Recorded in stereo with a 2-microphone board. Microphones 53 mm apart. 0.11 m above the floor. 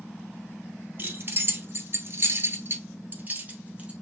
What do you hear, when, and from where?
1.0 s keys jangling: 40° right (ahead or behind), 1.7 m; by 3.9 s 25° right (ahead or behind), 2 m